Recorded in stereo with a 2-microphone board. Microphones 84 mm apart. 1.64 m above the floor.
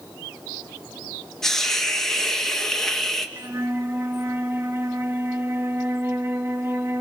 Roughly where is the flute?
Right.